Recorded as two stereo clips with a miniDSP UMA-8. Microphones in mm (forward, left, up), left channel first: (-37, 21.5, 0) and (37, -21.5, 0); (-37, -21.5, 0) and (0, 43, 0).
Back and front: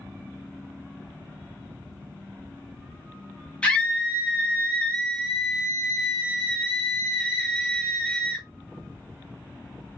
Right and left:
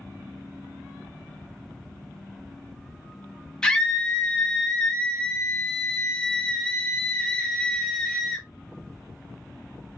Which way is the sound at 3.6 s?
165° right.